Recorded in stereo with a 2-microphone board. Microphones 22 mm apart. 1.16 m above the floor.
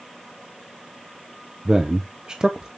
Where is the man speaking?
35° right (ahead or behind), 0.7 m.